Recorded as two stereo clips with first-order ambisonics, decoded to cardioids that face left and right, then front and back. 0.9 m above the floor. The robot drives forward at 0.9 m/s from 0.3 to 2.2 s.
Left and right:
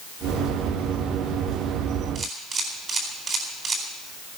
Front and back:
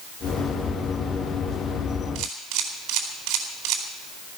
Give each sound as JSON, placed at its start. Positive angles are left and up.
{"t": 2.1, "sound": "a camera shutter", "azimuth_deg": -155, "distance_m": 4.0}